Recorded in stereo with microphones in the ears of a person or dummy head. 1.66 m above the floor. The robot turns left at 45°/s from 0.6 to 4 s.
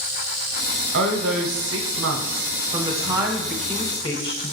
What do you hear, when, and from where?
0.9 s a woman speaking: 65° right, 0.7 m; by 4.5 s 155° left, 0.7 m